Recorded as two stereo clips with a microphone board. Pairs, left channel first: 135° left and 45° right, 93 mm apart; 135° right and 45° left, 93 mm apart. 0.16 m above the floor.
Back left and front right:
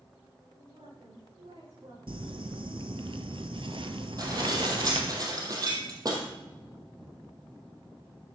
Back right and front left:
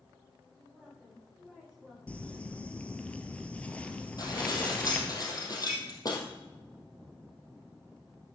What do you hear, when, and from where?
0.5 s a woman speaking: 50° right, 8.5 m
2.1 s crumpling: 60° right, 1.1 m
4.2 s dishes clattering: 90° right, 3.5 m